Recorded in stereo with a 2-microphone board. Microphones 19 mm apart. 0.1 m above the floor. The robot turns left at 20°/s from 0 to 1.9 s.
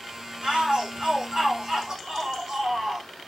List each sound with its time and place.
0.4 s a shout: 65° right (ahead or behind), 5.5 m; by 3.1 s 40° right (ahead or behind), 5.5 m